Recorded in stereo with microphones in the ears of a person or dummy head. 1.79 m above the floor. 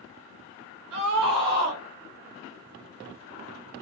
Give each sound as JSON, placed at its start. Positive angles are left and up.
{"t": 0.9, "sound": "a scream", "side_deg": -80, "distance_m": 1.4}